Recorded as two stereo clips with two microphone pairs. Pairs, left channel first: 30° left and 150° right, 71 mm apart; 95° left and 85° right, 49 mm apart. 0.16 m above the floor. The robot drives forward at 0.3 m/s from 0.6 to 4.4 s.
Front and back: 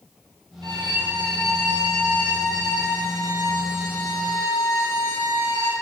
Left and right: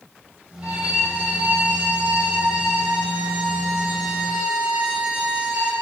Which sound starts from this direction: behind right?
A violin, at 0.6 s.